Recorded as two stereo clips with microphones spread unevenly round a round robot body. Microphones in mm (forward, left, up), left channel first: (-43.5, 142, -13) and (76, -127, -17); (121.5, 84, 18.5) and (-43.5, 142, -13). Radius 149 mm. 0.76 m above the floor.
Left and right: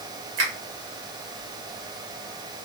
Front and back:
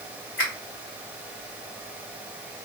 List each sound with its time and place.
0.4 s a finger snap: 75° right, 1.3 m